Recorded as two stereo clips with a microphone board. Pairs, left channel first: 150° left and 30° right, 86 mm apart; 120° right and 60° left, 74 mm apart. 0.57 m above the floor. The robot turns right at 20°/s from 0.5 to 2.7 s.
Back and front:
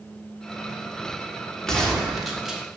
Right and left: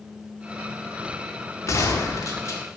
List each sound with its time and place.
1.7 s a gunshot: 130° right, 1.7 m; by 2.6 s 110° right, 1.7 m